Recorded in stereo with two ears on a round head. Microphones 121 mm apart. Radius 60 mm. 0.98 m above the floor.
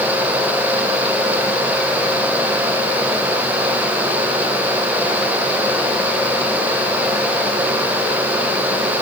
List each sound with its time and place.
Only background noise.